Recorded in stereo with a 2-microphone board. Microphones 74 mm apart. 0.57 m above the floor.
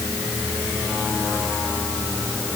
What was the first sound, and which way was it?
Only background noise.